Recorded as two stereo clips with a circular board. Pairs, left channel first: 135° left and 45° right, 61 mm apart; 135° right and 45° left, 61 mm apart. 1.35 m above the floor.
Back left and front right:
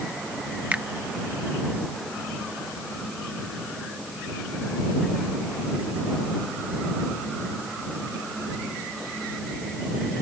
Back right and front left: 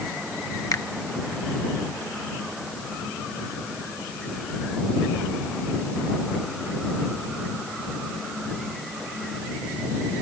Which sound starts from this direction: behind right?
A finger snap, at 0.7 s.